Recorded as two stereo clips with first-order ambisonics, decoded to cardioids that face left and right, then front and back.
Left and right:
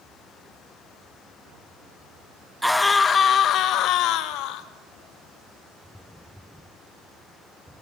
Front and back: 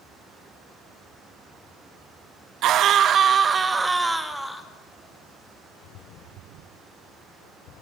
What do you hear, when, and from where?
2.6 s a scream: straight behind, 1.2 m; by 4.7 s 85° left, 1.8 m